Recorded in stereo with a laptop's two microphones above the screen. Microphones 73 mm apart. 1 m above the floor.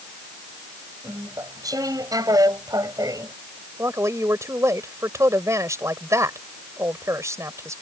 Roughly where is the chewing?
Right.